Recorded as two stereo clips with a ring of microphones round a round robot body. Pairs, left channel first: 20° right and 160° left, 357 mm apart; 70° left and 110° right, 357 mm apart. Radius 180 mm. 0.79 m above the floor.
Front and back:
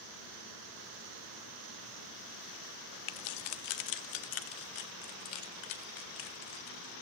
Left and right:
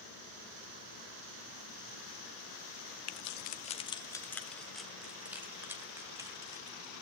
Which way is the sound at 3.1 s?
15° left.